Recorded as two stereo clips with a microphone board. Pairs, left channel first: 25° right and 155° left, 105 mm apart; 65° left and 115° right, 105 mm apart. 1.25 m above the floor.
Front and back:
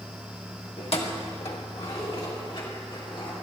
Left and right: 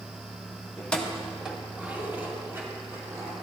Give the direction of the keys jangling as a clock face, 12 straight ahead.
12 o'clock.